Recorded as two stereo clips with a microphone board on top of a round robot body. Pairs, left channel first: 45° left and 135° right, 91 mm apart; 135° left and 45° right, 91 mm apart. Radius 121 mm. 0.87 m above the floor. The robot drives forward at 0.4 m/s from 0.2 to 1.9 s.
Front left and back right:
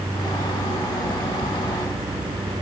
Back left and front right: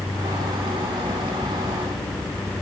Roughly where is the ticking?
No ticking in this recording.